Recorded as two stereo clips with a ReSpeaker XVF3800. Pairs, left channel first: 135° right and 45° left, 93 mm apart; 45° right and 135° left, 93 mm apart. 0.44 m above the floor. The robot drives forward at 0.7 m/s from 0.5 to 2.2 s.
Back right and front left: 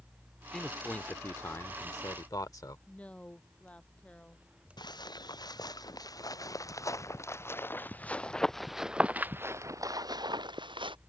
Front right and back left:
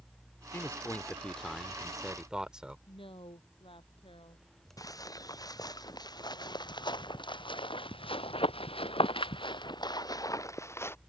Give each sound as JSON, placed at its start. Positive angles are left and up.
{"t": 0.5, "sound": "a man speaking", "azimuth_deg": -60}
{"t": 2.9, "sound": "a woman speaking", "azimuth_deg": -60}
{"t": 4.8, "sound": "footsteps", "azimuth_deg": -95}